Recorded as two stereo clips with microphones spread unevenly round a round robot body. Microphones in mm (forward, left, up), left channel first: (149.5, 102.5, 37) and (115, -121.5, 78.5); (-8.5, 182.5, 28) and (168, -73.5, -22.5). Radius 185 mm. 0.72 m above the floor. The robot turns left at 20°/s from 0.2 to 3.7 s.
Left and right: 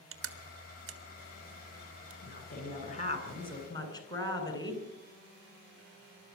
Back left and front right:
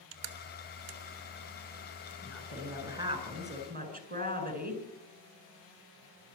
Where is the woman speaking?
35° left, 8 m; by 4.8 s 10° left, 8 m.